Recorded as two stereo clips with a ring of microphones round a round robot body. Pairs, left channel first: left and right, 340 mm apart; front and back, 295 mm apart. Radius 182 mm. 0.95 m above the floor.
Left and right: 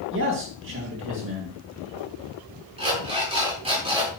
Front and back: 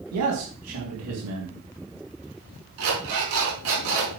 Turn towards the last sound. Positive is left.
turn(degrees=-165)